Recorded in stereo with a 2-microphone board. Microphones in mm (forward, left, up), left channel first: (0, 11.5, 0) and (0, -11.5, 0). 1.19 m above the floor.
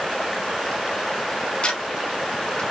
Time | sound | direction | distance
1.6 | ticking | 50° left (ahead or behind) | 2.0 m